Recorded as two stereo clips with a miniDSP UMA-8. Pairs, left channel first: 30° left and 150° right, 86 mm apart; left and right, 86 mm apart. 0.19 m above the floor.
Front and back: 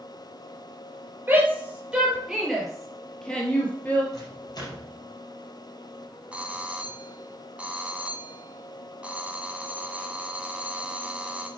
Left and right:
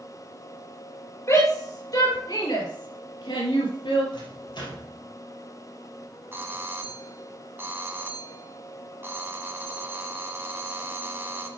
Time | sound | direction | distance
1.3 | a shout | 140° left | 3.5 m
4.1 | a microwave | 70° left | 3.5 m
6.3 | a doorbell | 95° right | 1.6 m